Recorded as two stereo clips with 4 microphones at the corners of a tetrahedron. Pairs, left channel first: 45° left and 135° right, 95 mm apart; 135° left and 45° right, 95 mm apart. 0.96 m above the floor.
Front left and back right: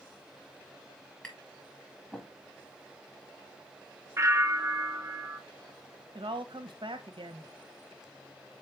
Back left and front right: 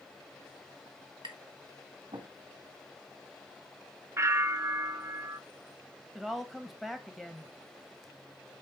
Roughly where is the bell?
Right.